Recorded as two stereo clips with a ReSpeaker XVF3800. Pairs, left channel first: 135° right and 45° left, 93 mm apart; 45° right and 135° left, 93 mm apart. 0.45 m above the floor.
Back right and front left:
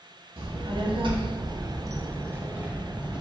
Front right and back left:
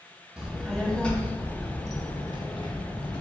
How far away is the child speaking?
About 1.0 m.